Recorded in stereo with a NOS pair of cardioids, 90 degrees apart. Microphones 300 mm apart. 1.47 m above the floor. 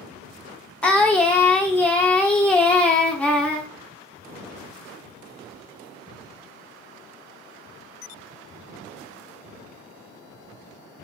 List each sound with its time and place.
0.8 s singing: 5° left, 0.7 m